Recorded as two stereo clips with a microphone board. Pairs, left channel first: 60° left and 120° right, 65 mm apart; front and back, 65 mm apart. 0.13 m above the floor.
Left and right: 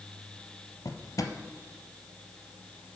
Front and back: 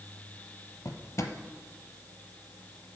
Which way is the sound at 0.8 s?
40° left.